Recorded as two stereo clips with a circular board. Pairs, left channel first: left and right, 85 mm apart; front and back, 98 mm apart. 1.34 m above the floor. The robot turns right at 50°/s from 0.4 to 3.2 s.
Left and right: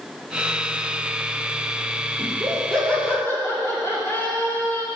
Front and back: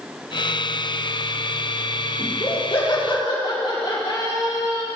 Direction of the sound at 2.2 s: 20° right.